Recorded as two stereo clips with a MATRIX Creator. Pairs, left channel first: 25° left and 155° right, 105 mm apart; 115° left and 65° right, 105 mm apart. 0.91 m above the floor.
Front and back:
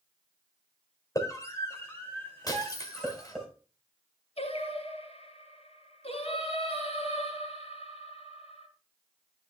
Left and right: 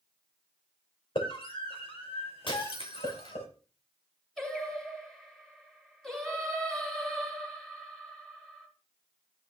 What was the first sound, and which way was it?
A scream, 80° left.